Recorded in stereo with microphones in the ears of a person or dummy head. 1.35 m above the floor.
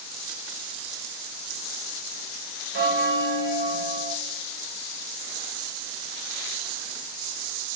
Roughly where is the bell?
Right.